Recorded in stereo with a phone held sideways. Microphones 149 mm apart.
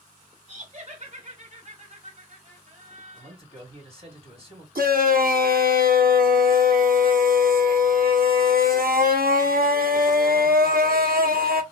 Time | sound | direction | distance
0.5 | laughter | 50° right (ahead or behind) | 1.6 m
3.1 | a man speaking | 45° right (ahead or behind) | 3.5 m
4.8 | a shout | 80° right | 1.6 m